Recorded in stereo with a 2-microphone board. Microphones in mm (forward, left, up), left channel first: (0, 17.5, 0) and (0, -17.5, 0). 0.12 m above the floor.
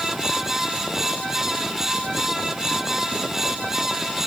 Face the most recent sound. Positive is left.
No sound to turn to.